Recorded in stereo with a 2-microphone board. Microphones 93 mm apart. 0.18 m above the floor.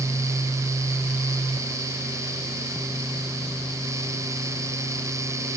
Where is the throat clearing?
I don't hear throat clearing.